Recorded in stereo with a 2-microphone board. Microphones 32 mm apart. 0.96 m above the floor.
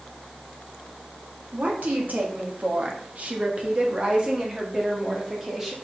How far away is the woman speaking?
About 1.8 m.